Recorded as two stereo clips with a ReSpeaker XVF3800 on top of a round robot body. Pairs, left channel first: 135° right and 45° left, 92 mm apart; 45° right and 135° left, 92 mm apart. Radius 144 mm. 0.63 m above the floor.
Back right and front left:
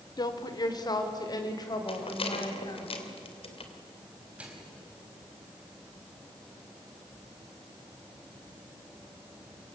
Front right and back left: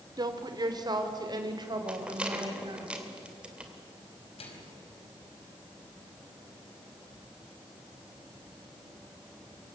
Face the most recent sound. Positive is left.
turn(degrees=-30)